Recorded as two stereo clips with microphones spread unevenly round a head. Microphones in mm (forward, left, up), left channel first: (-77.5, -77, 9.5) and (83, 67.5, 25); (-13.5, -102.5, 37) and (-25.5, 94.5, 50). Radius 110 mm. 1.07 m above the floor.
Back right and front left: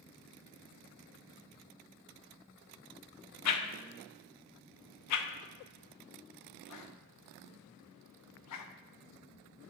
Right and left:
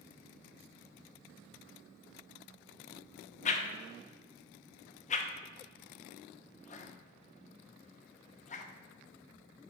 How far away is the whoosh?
About 0.6 m.